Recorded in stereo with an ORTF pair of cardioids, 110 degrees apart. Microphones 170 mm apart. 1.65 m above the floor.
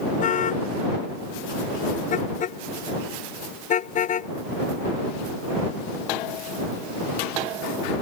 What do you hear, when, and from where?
0.2 s a car horn: 50° left; by 4.3 s 45° left